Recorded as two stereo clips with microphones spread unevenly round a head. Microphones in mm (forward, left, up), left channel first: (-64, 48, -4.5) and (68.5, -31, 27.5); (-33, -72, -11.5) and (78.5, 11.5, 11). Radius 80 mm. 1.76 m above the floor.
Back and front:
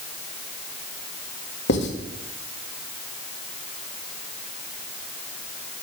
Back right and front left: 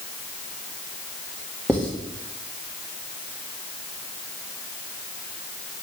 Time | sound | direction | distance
1.7 | writing | 130° left | 1.9 m